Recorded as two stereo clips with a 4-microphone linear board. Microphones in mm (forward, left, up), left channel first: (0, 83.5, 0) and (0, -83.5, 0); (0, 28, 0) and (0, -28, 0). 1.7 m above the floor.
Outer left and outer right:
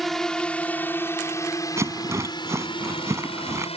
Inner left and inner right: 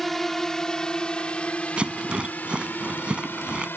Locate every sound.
0.0 s a drone: centre (ahead or behind); by 3.8 s 40° left (ahead or behind)
1.8 s a rattle: 15° right (ahead or behind)